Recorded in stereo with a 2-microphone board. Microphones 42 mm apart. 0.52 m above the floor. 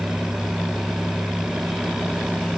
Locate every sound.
Only background noise.